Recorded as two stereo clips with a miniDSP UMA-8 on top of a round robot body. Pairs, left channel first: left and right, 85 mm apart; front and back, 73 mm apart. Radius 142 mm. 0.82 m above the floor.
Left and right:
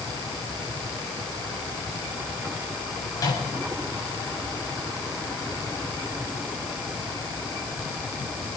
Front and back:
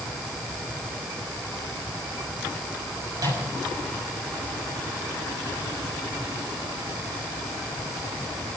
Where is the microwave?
140° left, 6 m.